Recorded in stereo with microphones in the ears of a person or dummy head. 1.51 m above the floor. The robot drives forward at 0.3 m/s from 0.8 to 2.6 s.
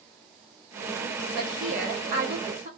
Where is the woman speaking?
55° right (ahead or behind), 0.7 m; by 2.7 s 40° right (ahead or behind), 0.9 m.